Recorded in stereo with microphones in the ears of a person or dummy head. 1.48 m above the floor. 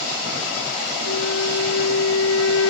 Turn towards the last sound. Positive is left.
turn(degrees=80)